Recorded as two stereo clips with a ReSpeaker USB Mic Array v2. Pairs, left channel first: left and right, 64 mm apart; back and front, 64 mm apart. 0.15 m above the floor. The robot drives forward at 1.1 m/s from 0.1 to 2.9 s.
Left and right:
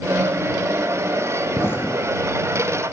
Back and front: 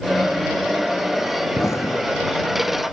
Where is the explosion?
140° left; by 2.7 s 150° left.